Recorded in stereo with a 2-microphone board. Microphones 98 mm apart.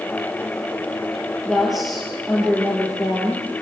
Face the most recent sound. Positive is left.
turn(degrees=0)  # may be behind; listen again after turning